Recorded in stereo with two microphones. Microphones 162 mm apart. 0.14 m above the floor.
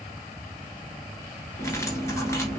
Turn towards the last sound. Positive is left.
turn(degrees=15)  # may be behind; listen again after turning